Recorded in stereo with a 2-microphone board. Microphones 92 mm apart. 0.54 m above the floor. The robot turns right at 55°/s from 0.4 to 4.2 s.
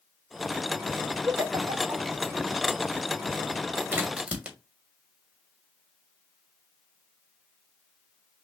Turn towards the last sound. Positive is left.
turn(degrees=-15)  # may be behind; listen again after turning